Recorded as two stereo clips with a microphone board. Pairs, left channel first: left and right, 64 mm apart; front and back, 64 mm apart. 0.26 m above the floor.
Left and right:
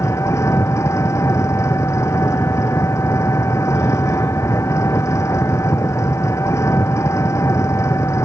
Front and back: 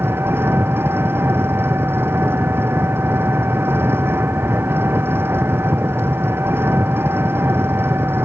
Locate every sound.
0.0 s an engine running: 130° left